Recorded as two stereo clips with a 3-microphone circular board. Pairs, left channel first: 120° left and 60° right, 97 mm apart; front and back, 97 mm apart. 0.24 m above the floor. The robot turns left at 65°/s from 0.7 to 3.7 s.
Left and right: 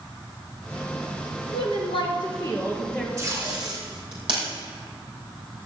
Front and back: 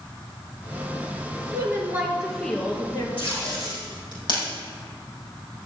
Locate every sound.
1.5 s a woman speaking: 135° left, 3.5 m; by 3.1 s 35° left, 3.5 m
3.2 s tape being pulled: straight ahead, 5.5 m; by 4.5 s 35° right, 5.5 m